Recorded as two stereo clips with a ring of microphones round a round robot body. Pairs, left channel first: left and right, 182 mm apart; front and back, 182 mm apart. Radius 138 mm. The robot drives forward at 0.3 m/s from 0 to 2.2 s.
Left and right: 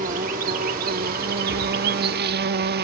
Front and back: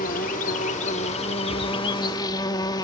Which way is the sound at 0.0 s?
45° right.